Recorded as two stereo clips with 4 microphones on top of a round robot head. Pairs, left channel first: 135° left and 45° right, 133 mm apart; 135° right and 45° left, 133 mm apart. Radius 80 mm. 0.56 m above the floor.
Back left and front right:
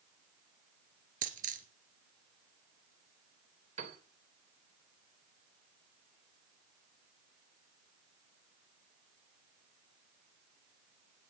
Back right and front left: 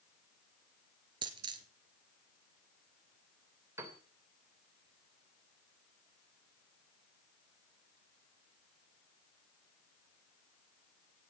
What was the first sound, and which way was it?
A dropped coin, 15° right.